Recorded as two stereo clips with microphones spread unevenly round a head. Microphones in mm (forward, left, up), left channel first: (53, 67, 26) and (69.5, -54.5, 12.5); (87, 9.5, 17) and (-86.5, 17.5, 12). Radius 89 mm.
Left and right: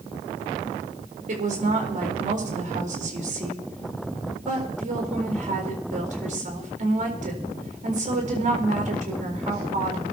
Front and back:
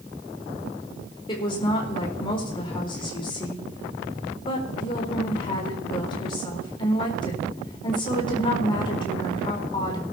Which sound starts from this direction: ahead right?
A woman speaking, at 1.3 s.